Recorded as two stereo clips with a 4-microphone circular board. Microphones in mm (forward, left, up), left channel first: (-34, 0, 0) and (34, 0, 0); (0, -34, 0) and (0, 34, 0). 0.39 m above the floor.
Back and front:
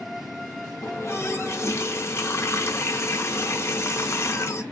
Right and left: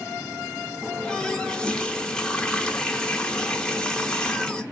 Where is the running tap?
165° right, 0.6 m.